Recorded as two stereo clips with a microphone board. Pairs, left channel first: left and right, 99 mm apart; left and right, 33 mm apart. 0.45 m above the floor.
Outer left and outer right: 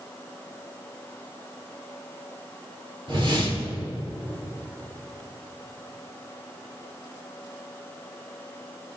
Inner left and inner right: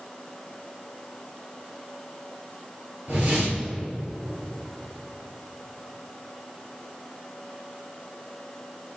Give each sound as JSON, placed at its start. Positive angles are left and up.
{"t": 3.1, "sound": "a whoosh", "side_deg": -55, "distance_m": 3.5}